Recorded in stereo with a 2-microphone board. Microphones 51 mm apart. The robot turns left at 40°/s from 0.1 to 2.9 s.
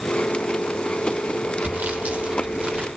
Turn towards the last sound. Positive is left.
turn(degrees=-145)